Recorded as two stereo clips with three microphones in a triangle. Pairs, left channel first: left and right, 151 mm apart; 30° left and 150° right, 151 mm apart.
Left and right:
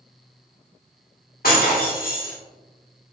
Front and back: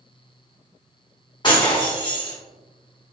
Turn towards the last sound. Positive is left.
turn(degrees=90)